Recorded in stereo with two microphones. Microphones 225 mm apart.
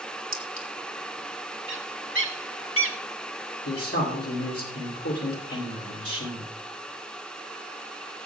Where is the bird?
60° right (ahead or behind), 1.3 m.